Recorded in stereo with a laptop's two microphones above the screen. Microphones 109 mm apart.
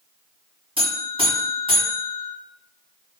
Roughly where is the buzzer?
Right.